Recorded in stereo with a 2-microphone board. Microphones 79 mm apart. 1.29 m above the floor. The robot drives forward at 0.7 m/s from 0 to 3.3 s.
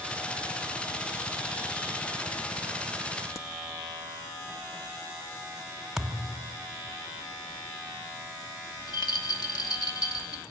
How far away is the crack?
About 0.9 m.